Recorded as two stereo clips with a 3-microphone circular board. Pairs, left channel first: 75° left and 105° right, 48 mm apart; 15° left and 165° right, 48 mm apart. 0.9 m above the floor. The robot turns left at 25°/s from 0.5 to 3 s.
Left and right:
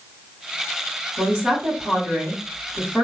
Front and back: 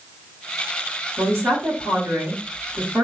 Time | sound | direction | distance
1.2 | a woman speaking | 155° right | 1.9 m